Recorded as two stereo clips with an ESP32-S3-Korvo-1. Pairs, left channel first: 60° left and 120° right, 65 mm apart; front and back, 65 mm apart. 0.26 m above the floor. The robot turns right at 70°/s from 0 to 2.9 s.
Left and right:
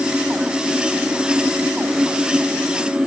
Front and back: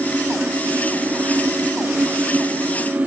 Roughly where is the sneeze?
I don't hear a sneeze.